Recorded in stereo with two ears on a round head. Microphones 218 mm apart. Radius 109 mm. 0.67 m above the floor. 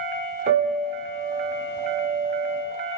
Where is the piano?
25° right (ahead or behind), 1.8 m.